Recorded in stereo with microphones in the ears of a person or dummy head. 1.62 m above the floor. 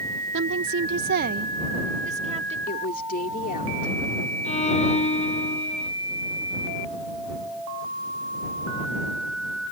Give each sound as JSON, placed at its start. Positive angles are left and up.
{"t": 0.3, "sound": "a woman speaking", "side_deg": -55}
{"t": 2.7, "sound": "a woman speaking", "side_deg": 45}
{"t": 4.5, "sound": "a violin", "side_deg": 35}